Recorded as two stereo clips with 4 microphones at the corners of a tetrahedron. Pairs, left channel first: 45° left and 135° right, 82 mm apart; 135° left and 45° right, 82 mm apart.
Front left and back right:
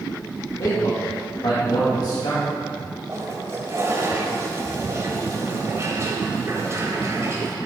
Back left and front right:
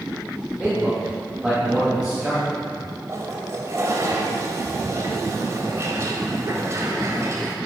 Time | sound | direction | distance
0.6 | a man speaking | 35° left | 3 m
3.1 | a toilet flushing | 90° right | 1.8 m